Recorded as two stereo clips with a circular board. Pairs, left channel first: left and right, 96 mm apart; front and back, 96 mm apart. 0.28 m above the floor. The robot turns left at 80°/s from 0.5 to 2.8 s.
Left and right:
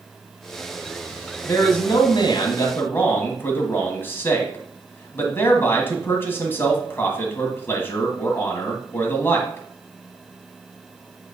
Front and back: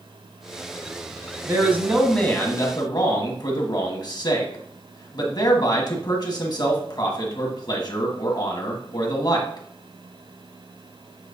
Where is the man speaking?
135° left, 1.6 m; by 9.7 s 30° left, 1.6 m.